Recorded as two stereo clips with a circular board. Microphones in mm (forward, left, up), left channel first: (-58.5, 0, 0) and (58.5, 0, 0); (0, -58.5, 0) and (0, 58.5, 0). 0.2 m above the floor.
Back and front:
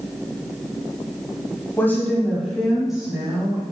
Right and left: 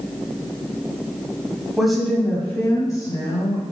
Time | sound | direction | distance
1.8 | a woman speaking | 165° left | 1.2 m